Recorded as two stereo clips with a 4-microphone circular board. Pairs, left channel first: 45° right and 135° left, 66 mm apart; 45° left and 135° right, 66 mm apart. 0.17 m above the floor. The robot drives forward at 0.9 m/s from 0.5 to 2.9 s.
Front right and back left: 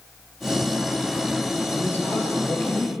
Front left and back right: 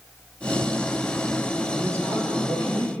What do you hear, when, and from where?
1.7 s a man speaking: 95° right, 2.5 m; by 2.9 s 115° right, 3 m